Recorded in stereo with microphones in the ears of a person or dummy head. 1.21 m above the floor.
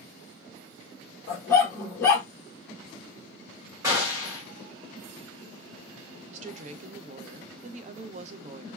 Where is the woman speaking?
45° right (ahead or behind), 0.5 m.